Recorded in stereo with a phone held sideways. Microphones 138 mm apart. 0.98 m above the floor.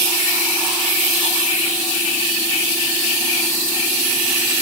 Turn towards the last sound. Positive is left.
No sound to turn to.